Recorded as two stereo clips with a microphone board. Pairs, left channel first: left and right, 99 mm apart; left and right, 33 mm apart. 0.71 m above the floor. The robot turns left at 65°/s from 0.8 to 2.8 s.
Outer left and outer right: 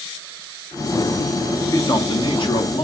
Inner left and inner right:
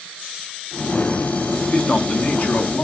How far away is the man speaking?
About 1.5 m.